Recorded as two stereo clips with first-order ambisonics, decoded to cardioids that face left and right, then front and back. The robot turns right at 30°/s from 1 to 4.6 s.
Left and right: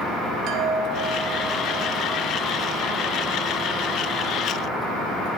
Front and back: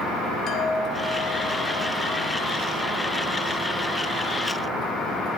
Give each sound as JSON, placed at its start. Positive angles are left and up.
{"t": 0.5, "sound": "a chime", "azimuth_deg": -55, "distance_m": 3.0}